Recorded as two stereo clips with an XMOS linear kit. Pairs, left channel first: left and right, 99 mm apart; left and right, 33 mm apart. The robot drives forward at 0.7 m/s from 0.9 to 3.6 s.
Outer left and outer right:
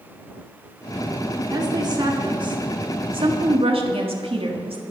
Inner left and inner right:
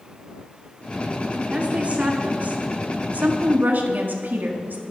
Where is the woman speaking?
45° right (ahead or behind), 3 m; by 4.8 s 70° right (ahead or behind), 2.5 m.